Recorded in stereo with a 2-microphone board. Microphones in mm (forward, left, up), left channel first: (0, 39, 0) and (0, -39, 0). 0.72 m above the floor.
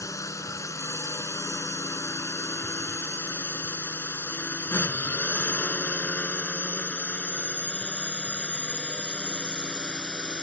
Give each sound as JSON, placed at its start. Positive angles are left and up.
{"t": 0.0, "sound": "a drone", "side_deg": 40}